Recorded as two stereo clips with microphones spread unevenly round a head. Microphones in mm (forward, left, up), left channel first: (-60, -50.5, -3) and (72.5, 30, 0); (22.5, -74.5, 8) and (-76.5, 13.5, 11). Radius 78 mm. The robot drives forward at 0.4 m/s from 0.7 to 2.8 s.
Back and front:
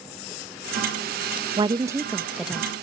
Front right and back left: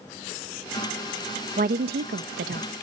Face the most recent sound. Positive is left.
turn(degrees=125)